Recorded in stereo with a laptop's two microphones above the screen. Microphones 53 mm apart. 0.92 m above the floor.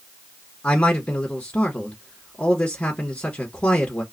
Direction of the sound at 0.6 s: 20° left (ahead or behind).